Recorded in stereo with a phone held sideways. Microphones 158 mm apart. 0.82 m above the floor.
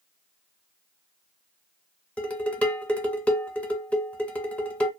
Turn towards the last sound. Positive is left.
turn(degrees=10)  # may be behind; listen again after turning